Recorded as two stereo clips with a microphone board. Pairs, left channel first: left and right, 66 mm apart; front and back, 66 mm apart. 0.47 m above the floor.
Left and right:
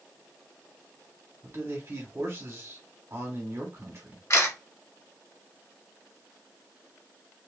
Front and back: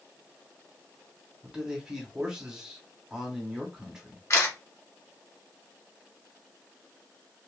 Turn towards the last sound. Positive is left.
turn(degrees=50)